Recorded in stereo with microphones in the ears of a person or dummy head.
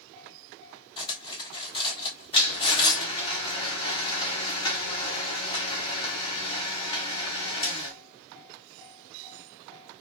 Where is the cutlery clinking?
25° left (ahead or behind), 1.0 m.